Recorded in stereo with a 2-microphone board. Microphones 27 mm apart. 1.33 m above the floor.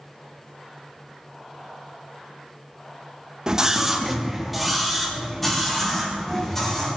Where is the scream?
25° right (ahead or behind), 1.8 m; by 6.9 s 15° left (ahead or behind), 6.5 m.